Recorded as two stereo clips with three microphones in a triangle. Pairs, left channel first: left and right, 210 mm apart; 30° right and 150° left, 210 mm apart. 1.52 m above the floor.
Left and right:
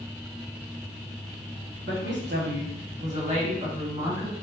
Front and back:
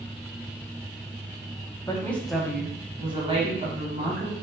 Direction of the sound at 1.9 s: 105° right.